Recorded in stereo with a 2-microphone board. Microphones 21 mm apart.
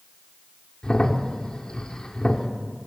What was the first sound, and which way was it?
A crack, 45° left (ahead or behind).